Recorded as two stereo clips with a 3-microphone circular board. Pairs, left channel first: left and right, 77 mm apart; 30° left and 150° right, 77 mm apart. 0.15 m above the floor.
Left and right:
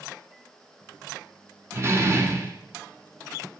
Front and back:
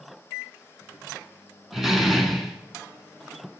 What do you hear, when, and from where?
1.7 s a door slam: 65° right, 1.2 m